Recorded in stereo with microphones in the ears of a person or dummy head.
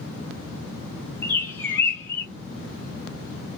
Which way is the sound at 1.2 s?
15° left (ahead or behind).